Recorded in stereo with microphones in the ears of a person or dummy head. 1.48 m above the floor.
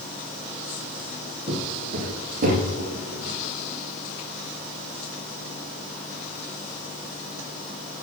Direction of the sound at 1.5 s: 25° right (ahead or behind).